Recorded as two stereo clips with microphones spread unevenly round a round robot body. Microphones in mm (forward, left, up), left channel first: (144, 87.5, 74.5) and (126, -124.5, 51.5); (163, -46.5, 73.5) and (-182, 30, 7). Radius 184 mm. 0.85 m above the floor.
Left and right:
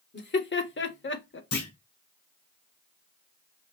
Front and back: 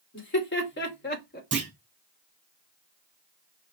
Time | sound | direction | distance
0.1 | laughter | 50° left | 2 m
1.5 | a clunk | 100° left | 3 m